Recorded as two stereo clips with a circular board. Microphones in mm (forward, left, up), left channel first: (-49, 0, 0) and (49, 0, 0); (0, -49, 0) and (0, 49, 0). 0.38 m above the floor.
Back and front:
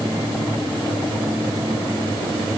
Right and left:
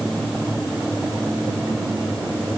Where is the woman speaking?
No woman speaking in this recording.